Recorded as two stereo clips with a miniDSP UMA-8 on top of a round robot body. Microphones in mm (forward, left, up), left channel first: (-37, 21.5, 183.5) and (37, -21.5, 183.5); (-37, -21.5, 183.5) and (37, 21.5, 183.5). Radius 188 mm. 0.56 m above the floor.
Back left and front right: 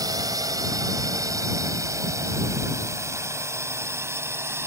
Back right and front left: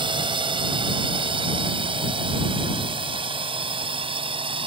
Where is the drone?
15° left; by 4.7 s 30° left.